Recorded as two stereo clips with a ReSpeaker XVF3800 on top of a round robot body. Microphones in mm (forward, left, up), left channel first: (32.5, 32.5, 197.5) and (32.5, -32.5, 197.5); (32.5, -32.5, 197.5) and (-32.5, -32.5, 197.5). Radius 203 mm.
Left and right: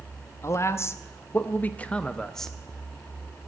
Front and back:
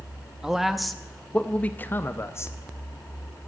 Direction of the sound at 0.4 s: 105° left.